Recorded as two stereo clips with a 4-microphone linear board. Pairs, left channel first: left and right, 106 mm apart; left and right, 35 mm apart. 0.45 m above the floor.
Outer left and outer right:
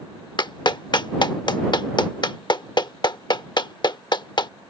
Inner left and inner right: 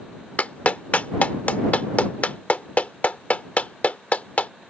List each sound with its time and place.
0.4 s a clap: 45° left (ahead or behind)